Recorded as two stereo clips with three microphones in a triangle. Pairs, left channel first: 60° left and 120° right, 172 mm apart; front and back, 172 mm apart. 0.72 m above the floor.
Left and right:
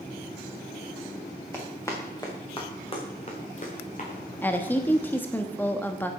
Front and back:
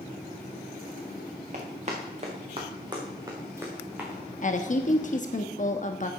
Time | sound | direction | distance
1.5 | running footsteps | 135° left | 3 m
4.4 | a woman speaking | 15° right | 0.9 m